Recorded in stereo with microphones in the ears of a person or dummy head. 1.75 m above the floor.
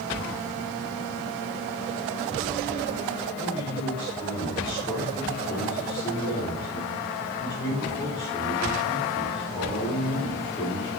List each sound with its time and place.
3.4 s a man speaking: 25° left (ahead or behind), 4.5 m